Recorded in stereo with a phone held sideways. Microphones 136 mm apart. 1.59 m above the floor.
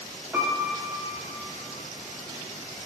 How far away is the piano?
About 0.6 m.